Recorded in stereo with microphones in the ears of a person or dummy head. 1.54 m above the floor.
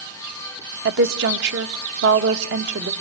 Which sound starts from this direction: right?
A woman speaking, at 0.8 s.